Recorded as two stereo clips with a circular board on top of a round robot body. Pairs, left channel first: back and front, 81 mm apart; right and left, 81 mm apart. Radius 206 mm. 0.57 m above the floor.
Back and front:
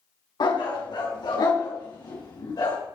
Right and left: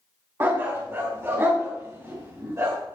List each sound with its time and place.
0.4 s a dog barking: 155° left, 3 m; by 2.8 s 145° left, 4.5 m